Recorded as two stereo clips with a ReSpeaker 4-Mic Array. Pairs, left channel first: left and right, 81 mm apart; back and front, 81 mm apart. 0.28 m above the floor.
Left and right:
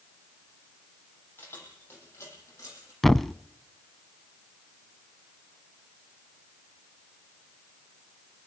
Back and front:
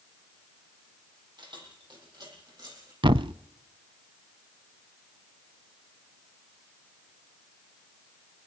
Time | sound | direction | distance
1.4 | keys jangling | 25° left | 7 m
3.0 | a thud | 5° left | 0.6 m